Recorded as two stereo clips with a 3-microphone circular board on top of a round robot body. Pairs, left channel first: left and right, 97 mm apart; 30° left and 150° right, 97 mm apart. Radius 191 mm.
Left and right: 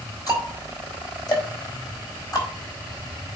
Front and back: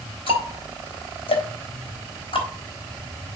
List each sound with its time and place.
0.3 s ticking: 40° left, 4 m